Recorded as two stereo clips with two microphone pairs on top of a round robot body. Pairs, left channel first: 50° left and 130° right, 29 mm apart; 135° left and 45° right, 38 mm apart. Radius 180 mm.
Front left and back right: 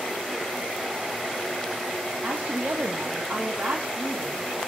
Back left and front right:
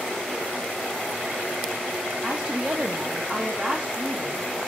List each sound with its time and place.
2.2 s a woman speaking: 110° right, 1.0 m